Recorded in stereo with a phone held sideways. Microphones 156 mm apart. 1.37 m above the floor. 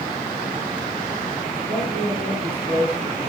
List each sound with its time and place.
1.7 s a man speaking: 85° left, 6.5 m; by 3.3 s 80° left, 4.5 m